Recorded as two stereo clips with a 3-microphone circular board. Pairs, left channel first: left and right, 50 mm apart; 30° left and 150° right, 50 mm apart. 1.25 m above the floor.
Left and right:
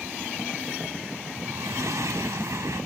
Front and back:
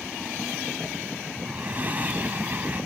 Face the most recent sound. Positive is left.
turn(degrees=-90)